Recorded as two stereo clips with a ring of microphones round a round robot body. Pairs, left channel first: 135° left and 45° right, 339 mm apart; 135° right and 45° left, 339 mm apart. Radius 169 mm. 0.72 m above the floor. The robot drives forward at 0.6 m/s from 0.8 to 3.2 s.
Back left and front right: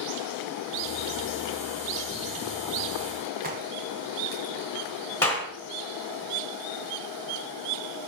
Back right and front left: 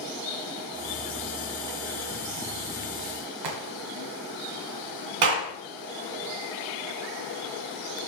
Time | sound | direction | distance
3.4 | a crack | 20° left | 1.6 m
5.2 | a clap | 50° left | 2.5 m